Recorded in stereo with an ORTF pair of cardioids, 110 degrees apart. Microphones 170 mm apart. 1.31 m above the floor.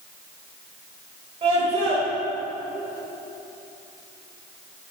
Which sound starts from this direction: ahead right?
A scream, at 1.4 s.